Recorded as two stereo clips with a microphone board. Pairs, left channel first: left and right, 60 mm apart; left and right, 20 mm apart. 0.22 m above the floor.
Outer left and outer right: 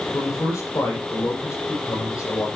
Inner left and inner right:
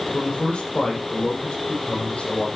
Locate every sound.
0.1 s a man speaking: 75° left (ahead or behind), 9 m